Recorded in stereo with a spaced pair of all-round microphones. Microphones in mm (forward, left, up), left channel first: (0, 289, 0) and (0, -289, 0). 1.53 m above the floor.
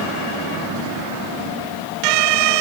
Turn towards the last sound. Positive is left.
No sound to turn to.